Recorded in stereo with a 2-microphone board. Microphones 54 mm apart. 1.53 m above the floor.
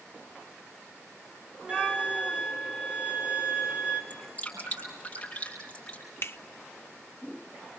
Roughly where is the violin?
Right.